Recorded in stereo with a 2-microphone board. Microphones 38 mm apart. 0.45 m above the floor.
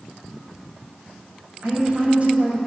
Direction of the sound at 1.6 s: 40° right (ahead or behind).